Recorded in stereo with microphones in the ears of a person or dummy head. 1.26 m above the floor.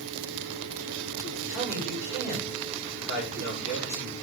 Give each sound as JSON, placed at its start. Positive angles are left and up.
{"t": 1.5, "sound": "a man speaking", "side_deg": 50, "distance_m": 6.5}